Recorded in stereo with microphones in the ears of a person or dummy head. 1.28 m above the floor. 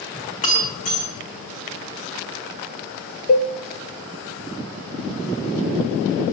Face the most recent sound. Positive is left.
turn(degrees=30)  # may be behind; listen again after turning